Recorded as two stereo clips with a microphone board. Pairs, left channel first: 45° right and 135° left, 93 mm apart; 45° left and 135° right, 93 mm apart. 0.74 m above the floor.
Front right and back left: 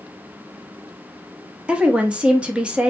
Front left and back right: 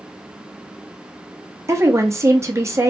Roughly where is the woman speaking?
Behind right.